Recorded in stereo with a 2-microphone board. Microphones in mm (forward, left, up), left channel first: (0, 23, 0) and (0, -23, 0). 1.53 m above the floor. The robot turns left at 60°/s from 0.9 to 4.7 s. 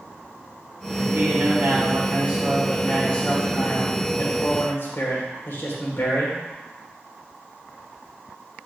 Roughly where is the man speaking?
Right.